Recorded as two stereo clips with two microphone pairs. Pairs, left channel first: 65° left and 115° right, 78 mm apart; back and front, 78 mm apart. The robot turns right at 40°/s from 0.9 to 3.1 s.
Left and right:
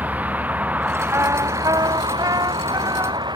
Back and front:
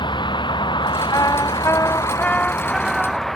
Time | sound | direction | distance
0.0 | a vehicle | straight behind | ?
1.1 | a trumpet | 160° right | ?